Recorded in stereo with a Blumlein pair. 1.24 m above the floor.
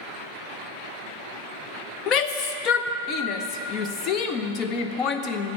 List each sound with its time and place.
2.1 s a shout: 35° left, 0.7 m